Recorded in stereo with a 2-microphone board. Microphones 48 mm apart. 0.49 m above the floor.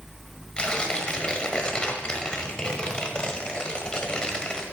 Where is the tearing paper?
20° left (ahead or behind), 1.3 m.